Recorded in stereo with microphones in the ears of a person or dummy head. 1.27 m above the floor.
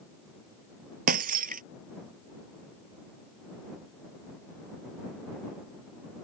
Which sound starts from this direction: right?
Breaking glass, at 1.1 s.